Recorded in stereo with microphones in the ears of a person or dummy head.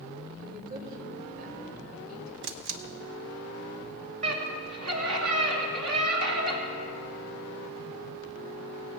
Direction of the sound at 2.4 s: 60° right (ahead or behind).